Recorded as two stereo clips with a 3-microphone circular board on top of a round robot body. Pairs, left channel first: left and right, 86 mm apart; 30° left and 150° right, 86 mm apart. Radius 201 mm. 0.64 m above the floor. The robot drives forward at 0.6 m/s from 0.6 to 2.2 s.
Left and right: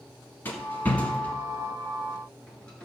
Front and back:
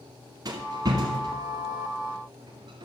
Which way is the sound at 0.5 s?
160° left.